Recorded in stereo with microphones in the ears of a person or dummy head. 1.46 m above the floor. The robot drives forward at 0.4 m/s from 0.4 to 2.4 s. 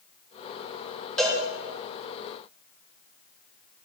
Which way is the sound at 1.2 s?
5° left (ahead or behind).